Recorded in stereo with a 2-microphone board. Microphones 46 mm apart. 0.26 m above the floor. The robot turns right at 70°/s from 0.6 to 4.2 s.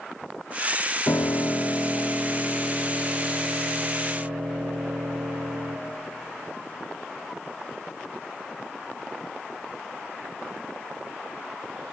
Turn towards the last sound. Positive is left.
turn(degrees=-50)